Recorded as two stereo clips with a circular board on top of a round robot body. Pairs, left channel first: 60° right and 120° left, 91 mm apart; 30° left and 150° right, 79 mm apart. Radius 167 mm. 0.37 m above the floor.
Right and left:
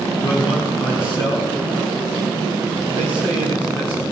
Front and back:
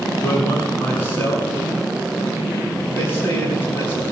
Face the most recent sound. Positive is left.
turn(degrees=-30)